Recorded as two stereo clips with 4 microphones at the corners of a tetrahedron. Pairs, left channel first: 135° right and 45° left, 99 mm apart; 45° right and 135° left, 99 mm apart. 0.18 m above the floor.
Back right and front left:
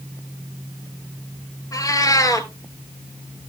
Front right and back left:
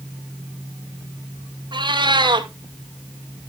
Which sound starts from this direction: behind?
A cat meowing, at 1.7 s.